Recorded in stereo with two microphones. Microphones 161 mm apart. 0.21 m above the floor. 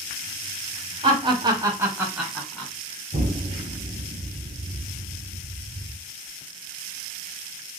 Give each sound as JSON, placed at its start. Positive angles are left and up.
{"t": 1.0, "sound": "laughter", "side_deg": -35, "distance_m": 1.2}
{"t": 3.1, "sound": "an explosion", "side_deg": -50, "distance_m": 1.0}